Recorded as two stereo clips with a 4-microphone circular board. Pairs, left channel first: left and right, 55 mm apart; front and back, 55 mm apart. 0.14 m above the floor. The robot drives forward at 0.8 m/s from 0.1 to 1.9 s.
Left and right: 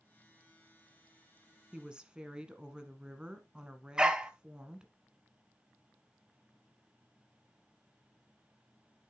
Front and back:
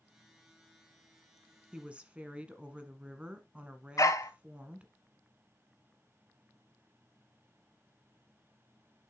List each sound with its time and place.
1.7 s a woman speaking: 135° right, 1.2 m; by 4.9 s 145° right, 1.2 m
4.0 s a dog barking: 15° right, 0.8 m